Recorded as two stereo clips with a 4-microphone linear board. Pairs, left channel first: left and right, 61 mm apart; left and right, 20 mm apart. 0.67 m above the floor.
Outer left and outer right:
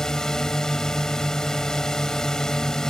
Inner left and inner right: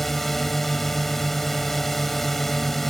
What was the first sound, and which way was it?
A drone, 10° left (ahead or behind).